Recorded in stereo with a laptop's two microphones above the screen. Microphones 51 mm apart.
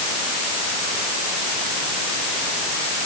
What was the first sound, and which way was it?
Only background noise.